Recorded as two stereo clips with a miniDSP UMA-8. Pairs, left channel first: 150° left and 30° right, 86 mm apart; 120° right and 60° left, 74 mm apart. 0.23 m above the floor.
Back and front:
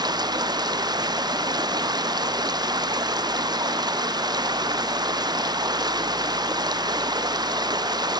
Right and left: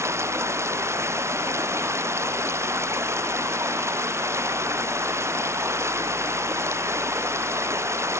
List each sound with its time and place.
0.0 s running water: 5° left